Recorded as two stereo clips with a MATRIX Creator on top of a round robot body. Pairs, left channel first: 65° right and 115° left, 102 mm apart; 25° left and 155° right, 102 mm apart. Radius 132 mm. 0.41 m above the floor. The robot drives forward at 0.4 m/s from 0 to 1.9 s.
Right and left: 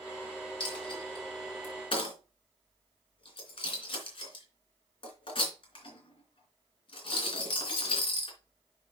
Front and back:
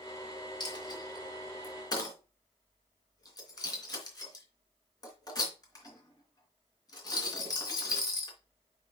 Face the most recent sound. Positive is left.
turn(degrees=-30)